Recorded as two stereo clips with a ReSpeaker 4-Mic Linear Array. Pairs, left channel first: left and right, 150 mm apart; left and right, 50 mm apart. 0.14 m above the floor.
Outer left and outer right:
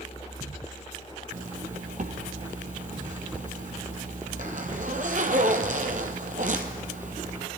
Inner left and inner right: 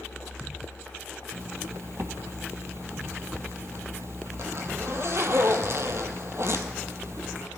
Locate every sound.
1.3 s a zipper: 60° right (ahead or behind), 1.1 m